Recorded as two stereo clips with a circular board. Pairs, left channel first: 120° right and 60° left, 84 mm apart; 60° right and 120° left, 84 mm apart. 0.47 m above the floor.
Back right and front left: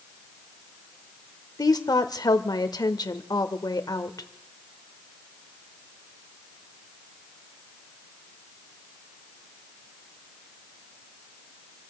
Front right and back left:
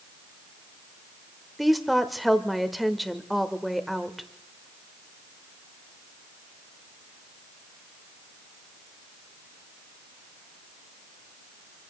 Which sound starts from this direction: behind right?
A woman speaking, at 1.6 s.